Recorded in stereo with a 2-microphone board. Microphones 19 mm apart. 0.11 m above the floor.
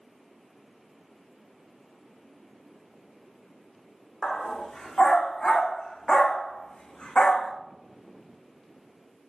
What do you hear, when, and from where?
4.2 s a dog barking: 35° left (ahead or behind), 3 m; by 7.5 s 70° left (ahead or behind), 3.5 m